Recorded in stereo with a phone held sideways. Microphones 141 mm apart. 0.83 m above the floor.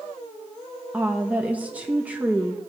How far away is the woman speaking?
About 0.7 m.